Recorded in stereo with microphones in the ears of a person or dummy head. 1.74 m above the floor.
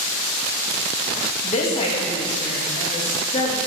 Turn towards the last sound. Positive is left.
turn(degrees=35)  # may be behind; listen again after turning